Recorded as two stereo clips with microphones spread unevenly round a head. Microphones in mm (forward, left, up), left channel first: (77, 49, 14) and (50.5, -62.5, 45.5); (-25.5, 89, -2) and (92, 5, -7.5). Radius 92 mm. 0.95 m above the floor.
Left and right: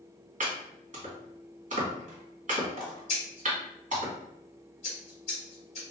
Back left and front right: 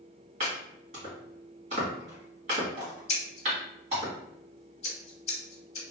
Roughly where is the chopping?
Right.